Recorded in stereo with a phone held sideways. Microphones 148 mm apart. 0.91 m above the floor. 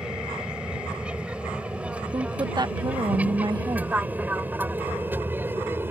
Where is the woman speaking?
30° right (ahead or behind).